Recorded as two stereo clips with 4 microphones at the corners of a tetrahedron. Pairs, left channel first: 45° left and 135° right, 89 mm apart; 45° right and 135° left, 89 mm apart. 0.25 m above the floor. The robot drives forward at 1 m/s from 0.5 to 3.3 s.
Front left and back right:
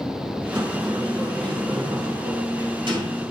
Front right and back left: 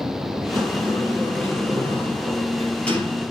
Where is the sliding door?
95° right, 5 m; by 3.2 s 120° right, 5.5 m.